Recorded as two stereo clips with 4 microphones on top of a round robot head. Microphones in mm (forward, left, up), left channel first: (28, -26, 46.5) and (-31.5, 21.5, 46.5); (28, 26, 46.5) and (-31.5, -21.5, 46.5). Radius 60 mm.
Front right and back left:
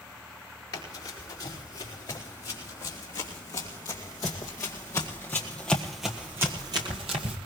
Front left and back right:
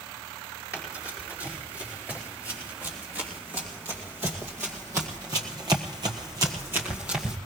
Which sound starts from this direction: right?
Running footsteps, at 0.7 s.